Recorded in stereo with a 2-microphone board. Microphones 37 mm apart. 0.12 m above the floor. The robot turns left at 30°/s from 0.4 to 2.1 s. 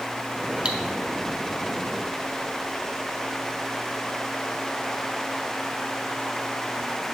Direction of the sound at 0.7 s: 30° right (ahead or behind).